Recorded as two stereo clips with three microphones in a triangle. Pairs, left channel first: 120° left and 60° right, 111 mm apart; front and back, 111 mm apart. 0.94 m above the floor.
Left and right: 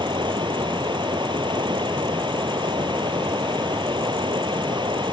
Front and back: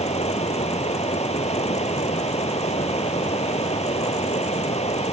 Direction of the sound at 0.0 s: 15° right.